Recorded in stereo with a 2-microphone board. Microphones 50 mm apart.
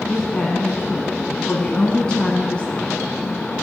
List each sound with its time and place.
0.1 s a woman speaking: 20° left (ahead or behind), 1.2 m